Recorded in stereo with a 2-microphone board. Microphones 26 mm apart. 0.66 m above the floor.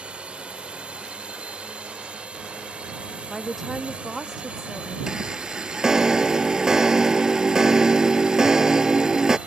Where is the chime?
20° right (ahead or behind).